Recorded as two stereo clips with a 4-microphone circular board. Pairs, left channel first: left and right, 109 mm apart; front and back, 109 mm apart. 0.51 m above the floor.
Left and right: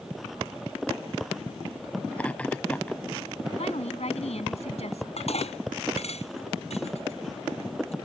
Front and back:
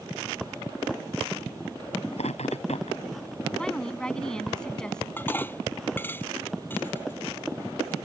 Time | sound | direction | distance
2.1 | laughter | 10° left | ?
3.6 | a woman speaking | 85° left | ?
5.2 | dishes clattering | 70° left | ?